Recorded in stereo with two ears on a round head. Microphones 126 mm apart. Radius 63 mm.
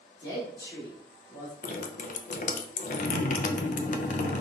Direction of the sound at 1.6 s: 65° left (ahead or behind).